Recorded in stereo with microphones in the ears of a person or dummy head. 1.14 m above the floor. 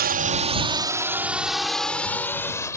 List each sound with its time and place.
0.0 s a drone: 45° right (ahead or behind); by 2.8 s 15° left (ahead or behind)